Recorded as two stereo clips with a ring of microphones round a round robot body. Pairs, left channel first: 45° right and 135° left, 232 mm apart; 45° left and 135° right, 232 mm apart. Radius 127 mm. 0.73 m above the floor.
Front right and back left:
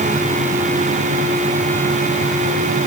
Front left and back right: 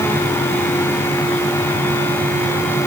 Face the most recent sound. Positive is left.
No sound to turn to.